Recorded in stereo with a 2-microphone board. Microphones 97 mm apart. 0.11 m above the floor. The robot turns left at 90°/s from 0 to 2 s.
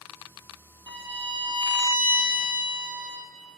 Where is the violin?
55° right, 0.9 m; by 3.2 s 160° right, 0.9 m.